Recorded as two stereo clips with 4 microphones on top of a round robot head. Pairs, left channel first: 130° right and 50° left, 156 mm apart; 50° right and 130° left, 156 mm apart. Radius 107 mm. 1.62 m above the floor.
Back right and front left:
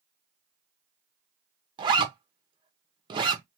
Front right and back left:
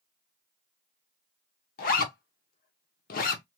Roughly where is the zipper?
Ahead.